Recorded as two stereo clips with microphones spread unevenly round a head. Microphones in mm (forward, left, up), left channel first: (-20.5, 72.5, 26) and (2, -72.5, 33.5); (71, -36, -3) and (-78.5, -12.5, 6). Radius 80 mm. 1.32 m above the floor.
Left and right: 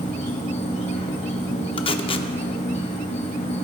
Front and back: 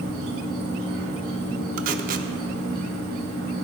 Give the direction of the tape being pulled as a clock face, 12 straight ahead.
7 o'clock.